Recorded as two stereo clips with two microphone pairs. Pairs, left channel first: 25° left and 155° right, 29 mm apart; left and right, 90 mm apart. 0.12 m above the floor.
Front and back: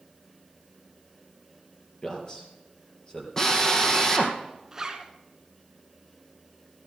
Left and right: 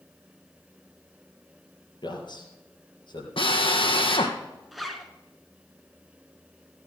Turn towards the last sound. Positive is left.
turn(degrees=-175)